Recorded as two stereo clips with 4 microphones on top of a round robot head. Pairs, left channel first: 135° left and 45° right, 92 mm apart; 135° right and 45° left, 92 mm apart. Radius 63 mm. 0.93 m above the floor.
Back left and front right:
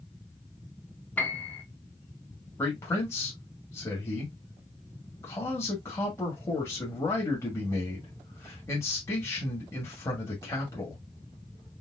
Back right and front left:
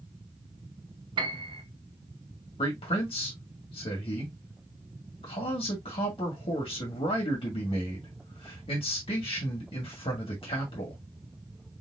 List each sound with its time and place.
1.2 s a piano: 70° left, 1.3 m
2.6 s a man speaking: 160° right, 1.9 m